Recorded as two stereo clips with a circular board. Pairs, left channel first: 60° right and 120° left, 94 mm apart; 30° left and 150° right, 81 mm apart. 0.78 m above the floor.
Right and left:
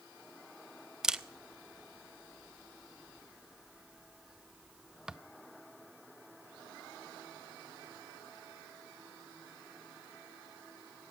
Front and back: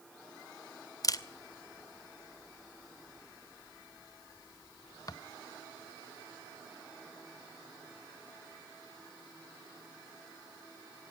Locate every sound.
1.0 s a camera shutter: 40° left, 0.5 m